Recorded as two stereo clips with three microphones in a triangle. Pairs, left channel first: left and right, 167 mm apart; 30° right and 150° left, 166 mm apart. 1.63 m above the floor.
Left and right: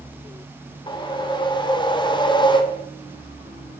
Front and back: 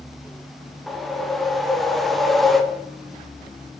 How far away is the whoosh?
About 0.6 m.